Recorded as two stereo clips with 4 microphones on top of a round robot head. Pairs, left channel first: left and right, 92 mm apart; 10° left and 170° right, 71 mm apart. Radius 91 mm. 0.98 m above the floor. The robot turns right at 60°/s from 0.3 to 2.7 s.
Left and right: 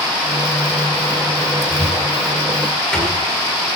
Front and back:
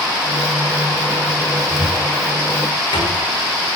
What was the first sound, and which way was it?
A cupboard door, 50° right.